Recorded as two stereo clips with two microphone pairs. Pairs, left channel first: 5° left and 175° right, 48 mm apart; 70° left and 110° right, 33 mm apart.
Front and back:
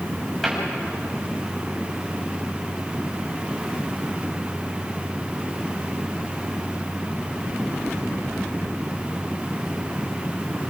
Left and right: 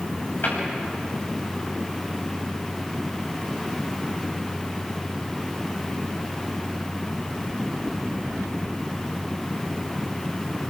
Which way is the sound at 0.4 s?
95° left.